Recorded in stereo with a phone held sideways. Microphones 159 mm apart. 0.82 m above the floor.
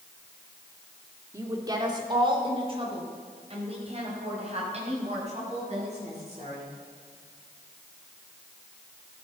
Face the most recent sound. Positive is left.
turn(degrees=-45)  # may be behind; listen again after turning